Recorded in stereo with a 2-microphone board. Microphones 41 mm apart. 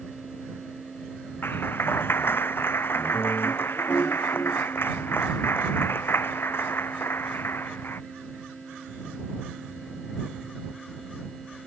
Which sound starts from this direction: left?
A clap, at 1.4 s.